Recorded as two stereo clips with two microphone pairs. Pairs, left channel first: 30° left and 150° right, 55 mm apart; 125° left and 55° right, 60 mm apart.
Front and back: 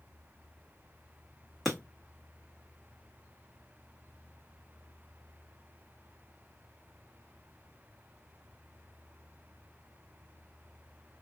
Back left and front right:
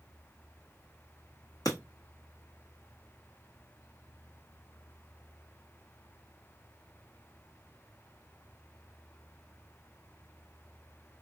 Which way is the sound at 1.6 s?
130° left.